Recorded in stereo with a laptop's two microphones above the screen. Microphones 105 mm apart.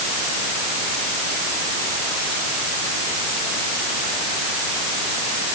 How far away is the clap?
I don't hear a clap.